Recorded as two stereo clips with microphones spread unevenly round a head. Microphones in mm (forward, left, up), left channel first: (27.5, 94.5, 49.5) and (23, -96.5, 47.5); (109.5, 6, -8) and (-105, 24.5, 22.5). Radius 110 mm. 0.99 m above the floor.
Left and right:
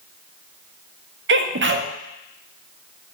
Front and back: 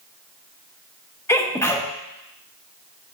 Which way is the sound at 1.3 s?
80° right.